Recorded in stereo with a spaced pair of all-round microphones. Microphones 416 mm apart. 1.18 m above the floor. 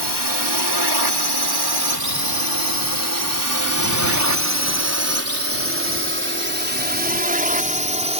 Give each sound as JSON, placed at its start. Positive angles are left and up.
{"t": 0.0, "sound": "a drone", "side_deg": -75}